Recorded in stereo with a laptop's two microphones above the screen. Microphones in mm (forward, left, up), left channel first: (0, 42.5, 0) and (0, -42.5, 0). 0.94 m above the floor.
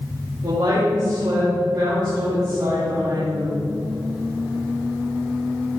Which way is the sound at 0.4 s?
65° right (ahead or behind).